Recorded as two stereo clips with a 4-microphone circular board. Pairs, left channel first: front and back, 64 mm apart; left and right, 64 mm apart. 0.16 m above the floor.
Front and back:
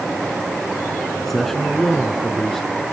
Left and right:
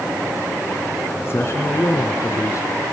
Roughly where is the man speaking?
Left.